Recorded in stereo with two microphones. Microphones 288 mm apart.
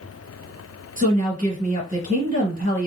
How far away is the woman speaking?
About 2 m.